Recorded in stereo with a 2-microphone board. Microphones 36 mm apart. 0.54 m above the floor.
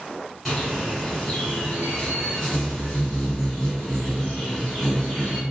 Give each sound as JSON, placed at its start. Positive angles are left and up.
{"t": 0.5, "sound": "a bird", "side_deg": 10, "distance_m": 1.8}